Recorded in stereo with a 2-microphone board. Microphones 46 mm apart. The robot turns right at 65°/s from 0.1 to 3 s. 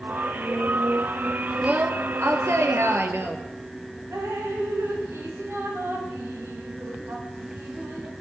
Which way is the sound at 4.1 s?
65° right (ahead or behind).